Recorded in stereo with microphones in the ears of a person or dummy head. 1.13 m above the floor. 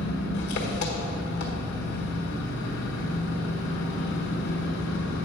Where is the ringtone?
No ringtone in this recording.